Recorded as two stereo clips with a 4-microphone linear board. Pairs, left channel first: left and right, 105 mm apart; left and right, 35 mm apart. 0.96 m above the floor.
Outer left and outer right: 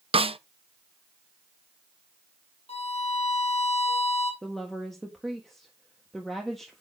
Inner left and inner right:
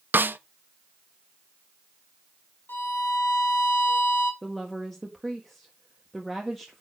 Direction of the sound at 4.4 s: 5° left (ahead or behind).